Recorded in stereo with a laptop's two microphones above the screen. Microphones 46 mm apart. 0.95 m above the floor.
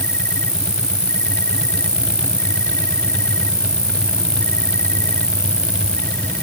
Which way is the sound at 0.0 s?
75° left (ahead or behind).